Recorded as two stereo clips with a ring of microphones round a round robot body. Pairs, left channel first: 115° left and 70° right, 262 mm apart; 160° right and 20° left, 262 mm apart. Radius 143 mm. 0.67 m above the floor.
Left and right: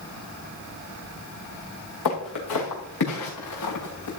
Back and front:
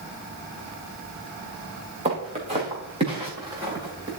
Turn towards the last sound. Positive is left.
turn(degrees=95)